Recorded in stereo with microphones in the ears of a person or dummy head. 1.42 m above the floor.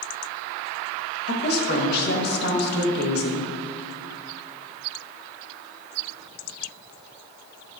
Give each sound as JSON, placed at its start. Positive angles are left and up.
{"t": 1.3, "sound": "a woman speaking", "side_deg": 60, "distance_m": 1.7}